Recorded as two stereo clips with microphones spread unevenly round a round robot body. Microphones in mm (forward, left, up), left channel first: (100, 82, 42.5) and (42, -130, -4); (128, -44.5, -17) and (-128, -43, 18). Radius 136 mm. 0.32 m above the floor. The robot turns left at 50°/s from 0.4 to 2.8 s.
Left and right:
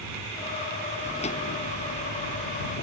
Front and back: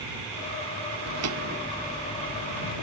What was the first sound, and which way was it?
Footsteps, 155° left.